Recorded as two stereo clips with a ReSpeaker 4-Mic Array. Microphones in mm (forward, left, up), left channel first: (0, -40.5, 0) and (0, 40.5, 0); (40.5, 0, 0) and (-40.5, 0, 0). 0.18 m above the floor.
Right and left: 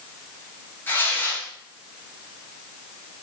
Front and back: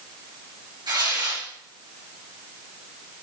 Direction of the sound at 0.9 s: 155° right.